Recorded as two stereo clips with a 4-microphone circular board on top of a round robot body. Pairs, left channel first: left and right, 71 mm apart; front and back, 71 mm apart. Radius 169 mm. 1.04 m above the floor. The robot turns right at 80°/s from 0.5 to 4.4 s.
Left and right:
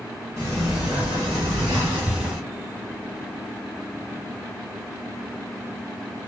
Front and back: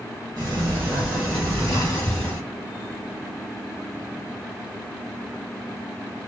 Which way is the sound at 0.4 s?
150° right.